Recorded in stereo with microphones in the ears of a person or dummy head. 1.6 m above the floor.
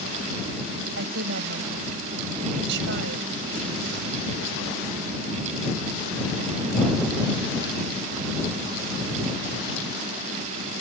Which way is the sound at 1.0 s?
65° right (ahead or behind).